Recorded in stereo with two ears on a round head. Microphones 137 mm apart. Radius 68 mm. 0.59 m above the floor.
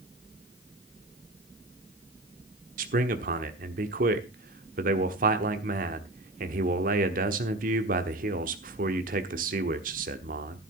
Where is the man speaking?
60° right (ahead or behind), 1.2 m.